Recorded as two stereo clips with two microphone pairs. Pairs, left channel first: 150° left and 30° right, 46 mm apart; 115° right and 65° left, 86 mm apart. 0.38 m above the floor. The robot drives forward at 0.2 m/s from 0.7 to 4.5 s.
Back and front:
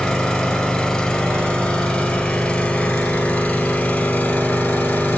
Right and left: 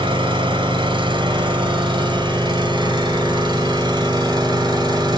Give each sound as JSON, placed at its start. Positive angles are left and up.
{"t": 0.0, "sound": "an engine running", "azimuth_deg": 80, "distance_m": 1.6}